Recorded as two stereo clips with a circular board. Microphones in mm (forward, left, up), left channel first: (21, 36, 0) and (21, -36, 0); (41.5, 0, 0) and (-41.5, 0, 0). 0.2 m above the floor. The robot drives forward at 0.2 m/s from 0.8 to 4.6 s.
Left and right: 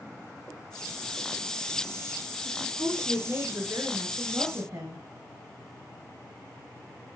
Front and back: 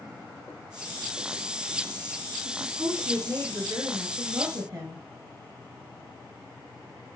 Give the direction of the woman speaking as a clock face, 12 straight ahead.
4 o'clock.